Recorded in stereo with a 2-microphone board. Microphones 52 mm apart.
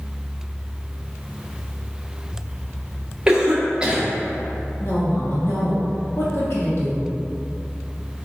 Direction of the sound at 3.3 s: 15° right (ahead or behind).